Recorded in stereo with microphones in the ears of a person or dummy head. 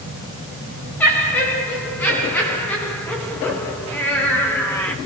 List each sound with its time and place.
1.0 s laughter: 5° left (ahead or behind), 4.5 m